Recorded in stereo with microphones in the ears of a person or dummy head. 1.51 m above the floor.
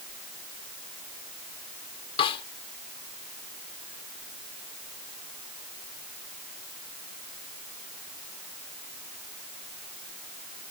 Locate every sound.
2.2 s a snare drum: 35° left (ahead or behind)